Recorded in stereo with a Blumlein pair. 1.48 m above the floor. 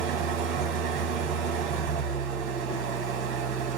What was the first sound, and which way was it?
An engine running, 40° right.